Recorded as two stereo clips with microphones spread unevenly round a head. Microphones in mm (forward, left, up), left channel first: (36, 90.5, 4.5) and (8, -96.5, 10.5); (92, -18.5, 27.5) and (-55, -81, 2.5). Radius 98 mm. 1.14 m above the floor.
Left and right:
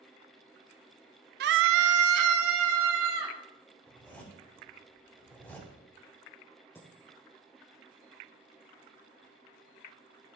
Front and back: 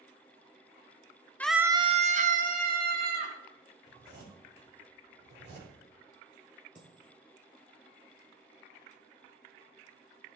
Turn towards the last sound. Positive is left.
turn(degrees=160)